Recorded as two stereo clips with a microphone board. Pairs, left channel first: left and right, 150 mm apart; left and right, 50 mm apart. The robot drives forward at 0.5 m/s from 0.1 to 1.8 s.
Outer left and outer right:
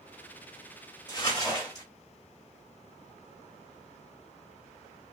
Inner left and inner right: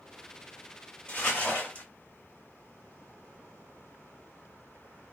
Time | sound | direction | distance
1.1 | crumpling | 25° left (ahead or behind) | 1.8 m